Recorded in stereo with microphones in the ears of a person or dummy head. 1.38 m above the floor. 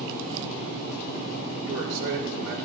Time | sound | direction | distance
1.6 | a man speaking | 75° right (ahead or behind) | 4.5 m